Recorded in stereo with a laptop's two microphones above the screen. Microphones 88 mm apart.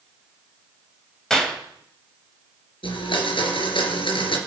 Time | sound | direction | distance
1.3 | a clap | 5° left (ahead or behind) | 4 m
2.8 | a blender | 80° left | 3.5 m